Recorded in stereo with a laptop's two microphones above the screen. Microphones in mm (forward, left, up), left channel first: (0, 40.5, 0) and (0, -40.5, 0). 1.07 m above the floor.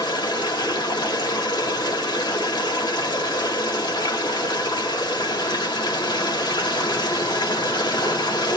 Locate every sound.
0.0 s running water: 70° left (ahead or behind), 1.5 m